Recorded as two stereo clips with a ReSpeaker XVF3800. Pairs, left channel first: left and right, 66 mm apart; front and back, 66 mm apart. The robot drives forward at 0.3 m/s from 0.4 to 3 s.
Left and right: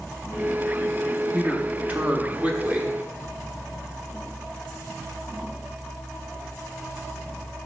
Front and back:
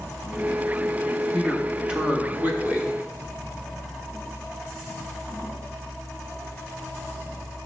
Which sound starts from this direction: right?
A man speaking, at 1.3 s.